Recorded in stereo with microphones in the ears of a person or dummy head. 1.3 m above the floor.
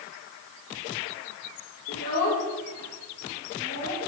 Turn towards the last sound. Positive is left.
turn(degrees=35)  # may be behind; listen again after turning